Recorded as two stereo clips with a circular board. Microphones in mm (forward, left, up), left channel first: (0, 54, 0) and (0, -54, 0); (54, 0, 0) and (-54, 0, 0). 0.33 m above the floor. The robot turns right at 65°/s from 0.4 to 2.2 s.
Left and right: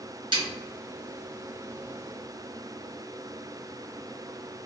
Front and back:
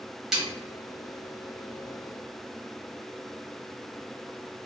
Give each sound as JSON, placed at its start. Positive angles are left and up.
{"t": 0.3, "sound": "a snare drum", "azimuth_deg": -95, "distance_m": 1.2}